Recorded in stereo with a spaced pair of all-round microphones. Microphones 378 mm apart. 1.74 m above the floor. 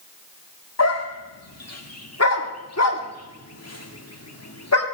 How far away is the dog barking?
About 1.6 m.